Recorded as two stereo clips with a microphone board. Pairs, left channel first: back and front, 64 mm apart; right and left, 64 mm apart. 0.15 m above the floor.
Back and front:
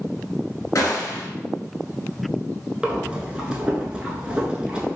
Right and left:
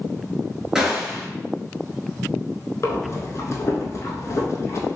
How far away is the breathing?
About 0.6 m.